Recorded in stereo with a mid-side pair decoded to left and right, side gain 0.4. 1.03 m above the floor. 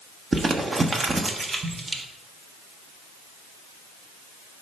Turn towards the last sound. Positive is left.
turn(degrees=-35)